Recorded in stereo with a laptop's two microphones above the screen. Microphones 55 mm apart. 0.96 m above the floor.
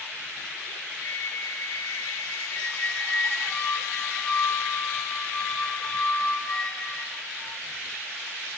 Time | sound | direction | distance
1.0 | a flute | 60° left (ahead or behind) | 8 m
2.5 | a squeak | 15° left (ahead or behind) | 3 m